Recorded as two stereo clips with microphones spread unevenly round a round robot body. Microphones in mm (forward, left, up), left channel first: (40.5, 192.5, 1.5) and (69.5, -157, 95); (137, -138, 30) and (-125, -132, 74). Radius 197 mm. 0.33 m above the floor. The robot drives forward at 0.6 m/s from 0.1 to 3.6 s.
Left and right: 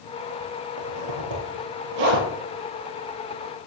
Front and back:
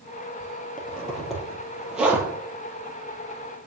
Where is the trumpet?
I don't hear a trumpet.